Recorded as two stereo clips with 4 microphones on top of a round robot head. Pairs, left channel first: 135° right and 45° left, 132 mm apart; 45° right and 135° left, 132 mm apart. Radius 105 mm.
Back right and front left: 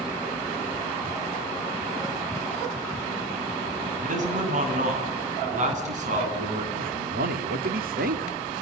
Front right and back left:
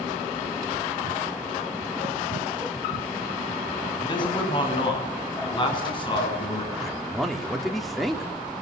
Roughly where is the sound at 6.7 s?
Ahead left.